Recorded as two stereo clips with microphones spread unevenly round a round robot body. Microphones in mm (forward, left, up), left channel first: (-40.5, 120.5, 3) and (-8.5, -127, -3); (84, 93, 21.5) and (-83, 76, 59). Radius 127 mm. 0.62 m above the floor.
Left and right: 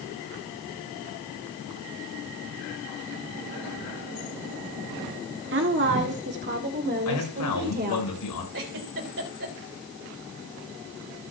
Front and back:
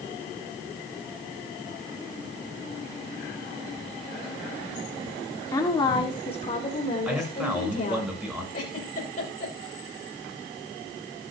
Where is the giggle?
40° right, 3 m.